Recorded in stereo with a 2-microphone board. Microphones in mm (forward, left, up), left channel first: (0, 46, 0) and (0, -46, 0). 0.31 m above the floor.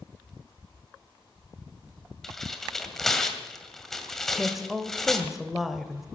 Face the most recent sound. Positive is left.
turn(degrees=0)  # may be behind; listen again after turning